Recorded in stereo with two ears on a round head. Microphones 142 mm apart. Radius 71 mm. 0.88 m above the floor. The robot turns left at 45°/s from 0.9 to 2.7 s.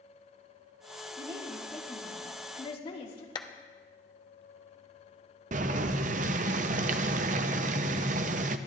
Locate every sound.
1.2 s a woman speaking: 155° right, 2.5 m; by 3.2 s 140° left, 2.5 m
3.4 s a clap: 25° left (ahead or behind), 0.7 m
5.5 s boiling: 50° right (ahead or behind), 0.5 m